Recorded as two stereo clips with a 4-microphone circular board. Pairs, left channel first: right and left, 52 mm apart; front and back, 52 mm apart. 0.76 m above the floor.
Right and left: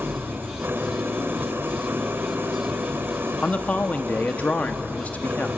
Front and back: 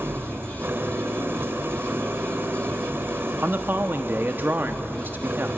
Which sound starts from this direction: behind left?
An engine running, at 0.0 s.